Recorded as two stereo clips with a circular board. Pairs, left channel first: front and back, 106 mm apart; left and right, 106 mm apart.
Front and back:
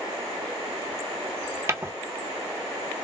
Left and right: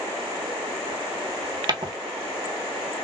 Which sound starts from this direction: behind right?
Footsteps, at 1.7 s.